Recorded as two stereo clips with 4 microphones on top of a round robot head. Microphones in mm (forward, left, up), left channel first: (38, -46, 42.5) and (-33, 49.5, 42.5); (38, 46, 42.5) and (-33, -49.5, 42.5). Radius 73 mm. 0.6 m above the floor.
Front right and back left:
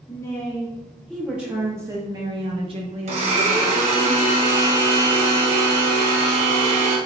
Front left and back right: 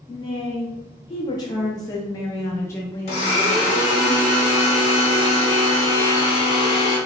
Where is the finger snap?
No finger snap in this recording.